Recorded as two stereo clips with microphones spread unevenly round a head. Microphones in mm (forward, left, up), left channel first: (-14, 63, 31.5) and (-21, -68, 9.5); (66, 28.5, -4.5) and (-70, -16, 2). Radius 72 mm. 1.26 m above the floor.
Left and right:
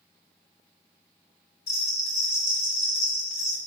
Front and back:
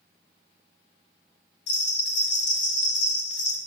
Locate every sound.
1.7 s a bell: 15° left, 2 m